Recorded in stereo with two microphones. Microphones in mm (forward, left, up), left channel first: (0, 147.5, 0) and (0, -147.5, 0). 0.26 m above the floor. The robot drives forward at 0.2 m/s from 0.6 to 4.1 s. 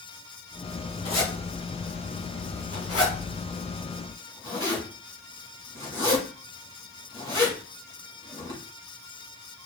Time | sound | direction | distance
1.1 | a zipper | 60° left (ahead or behind) | 1.2 m